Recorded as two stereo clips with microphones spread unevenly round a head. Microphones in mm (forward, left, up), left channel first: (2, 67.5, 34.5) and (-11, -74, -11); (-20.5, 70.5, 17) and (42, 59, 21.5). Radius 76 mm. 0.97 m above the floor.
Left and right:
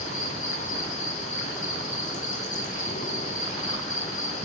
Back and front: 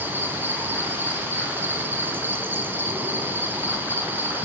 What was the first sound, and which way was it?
An insect, 45° left.